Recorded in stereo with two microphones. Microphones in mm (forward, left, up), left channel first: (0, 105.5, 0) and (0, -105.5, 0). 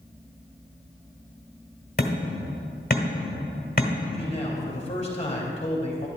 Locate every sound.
2.0 s hammering: 45° left (ahead or behind), 1.5 m
4.1 s a man speaking: 30° left (ahead or behind), 2.5 m